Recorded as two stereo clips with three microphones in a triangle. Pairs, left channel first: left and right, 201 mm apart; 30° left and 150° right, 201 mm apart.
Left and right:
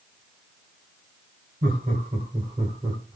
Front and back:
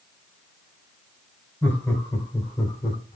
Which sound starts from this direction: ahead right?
Laughter, at 1.6 s.